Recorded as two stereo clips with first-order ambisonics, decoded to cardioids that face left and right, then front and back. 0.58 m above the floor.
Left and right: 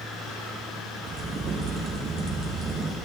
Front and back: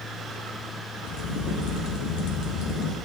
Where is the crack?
30° right, 3.5 m.